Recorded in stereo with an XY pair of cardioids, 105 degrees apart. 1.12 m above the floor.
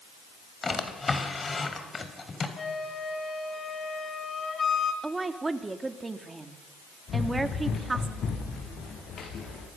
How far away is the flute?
About 3 m.